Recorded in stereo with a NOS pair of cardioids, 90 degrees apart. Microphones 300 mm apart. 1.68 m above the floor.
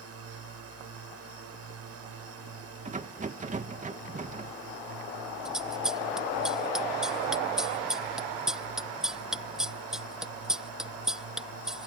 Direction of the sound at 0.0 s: 55° right.